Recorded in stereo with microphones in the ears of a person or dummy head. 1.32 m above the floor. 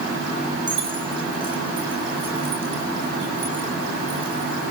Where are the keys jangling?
15° right (ahead or behind), 2.0 m; by 4.6 s 20° right (ahead or behind), 4.5 m.